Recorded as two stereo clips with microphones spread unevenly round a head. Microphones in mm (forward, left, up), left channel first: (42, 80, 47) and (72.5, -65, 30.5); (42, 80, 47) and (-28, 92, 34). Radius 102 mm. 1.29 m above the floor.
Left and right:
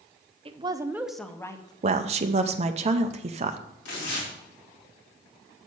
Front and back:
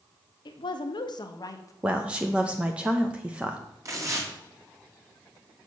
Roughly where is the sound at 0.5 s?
Ahead right.